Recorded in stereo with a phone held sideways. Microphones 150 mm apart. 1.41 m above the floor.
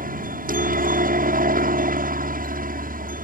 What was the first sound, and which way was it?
A helicopter, 70° right (ahead or behind).